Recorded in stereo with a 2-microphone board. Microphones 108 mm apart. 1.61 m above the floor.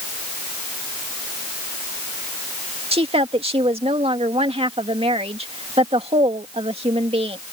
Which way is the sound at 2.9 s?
65° right (ahead or behind).